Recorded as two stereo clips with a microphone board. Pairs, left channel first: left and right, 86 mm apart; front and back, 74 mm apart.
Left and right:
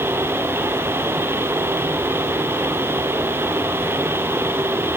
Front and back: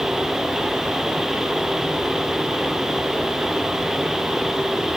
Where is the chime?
I don't hear a chime.